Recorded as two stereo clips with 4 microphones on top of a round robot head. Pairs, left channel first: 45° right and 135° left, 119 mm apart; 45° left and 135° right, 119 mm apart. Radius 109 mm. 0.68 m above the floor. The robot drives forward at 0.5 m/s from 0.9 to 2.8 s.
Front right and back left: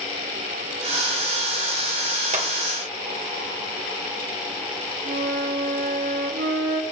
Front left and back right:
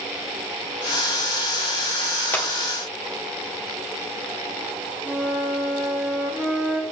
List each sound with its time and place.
2.3 s a clap: 120° left, 1.6 m
5.0 s a flute: 140° left, 0.7 m